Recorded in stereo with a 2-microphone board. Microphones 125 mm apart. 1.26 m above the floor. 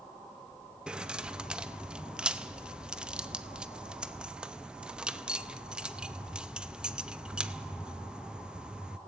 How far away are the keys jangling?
About 0.7 m.